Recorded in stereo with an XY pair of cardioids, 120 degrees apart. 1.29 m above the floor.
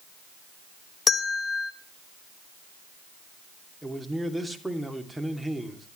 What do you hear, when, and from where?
1.1 s a bell: 35° left, 1.4 m
3.8 s a man speaking: straight ahead, 3 m